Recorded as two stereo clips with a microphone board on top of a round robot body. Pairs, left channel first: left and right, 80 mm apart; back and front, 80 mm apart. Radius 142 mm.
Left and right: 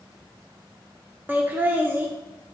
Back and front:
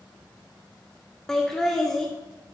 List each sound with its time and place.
1.3 s laughter: 105° right, 1.0 m